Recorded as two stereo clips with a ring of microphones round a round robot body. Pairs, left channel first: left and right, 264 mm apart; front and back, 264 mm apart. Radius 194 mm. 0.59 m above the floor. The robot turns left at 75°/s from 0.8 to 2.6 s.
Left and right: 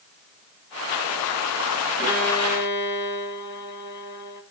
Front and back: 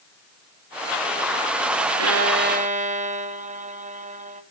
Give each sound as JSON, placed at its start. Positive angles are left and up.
{"t": 2.0, "sound": "a violin", "azimuth_deg": 165, "distance_m": 1.3}